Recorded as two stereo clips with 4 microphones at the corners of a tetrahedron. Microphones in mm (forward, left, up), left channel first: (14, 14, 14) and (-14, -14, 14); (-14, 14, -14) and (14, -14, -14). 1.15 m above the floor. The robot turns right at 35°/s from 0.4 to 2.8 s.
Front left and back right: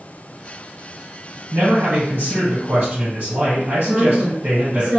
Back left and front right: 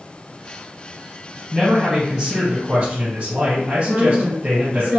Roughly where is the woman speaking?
Right.